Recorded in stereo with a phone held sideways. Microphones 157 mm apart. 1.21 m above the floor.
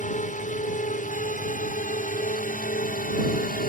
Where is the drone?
50° left (ahead or behind); by 3.7 s 60° left (ahead or behind).